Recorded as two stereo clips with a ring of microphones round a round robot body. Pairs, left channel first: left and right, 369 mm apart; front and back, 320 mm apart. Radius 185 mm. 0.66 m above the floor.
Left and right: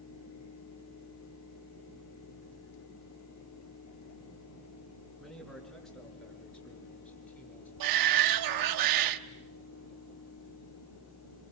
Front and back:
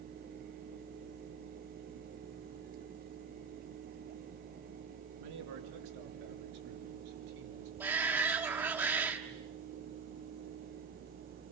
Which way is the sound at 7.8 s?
95° right.